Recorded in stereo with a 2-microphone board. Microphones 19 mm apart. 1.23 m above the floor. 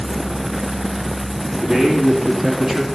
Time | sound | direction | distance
1.6 | a man speaking | 40° right (ahead or behind) | 2.5 m